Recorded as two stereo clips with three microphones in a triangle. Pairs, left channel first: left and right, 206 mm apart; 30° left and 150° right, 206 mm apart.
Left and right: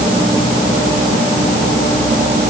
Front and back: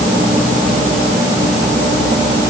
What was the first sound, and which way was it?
Only background noise.